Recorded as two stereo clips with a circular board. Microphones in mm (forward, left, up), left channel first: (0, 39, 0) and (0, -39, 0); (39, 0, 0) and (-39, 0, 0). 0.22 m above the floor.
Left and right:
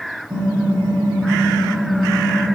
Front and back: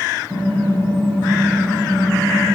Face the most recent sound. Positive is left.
turn(degrees=-50)